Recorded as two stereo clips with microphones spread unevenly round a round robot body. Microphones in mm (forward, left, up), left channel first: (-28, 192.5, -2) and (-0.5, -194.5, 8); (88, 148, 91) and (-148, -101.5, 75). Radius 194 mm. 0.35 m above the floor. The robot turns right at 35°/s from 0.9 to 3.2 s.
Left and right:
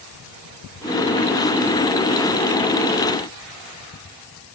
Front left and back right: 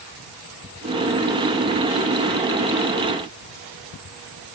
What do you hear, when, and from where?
Only background noise.